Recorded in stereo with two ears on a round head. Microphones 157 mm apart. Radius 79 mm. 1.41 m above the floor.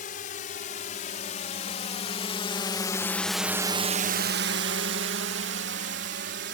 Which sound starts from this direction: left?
A drone, at 0.0 s.